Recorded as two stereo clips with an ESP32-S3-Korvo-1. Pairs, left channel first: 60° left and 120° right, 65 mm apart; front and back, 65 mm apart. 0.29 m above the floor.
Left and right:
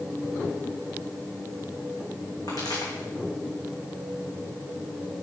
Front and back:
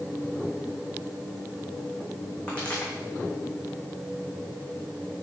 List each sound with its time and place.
2.5 s a pop: 70° left, 3 m